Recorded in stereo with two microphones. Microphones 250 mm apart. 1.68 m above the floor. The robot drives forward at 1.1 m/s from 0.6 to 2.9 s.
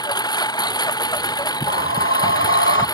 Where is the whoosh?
60° left (ahead or behind); by 2.9 s 55° left (ahead or behind).